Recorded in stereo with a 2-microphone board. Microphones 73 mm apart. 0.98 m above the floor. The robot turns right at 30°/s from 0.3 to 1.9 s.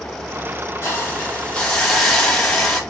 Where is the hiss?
145° left, 1.1 m; by 2.8 s 175° left, 1.1 m.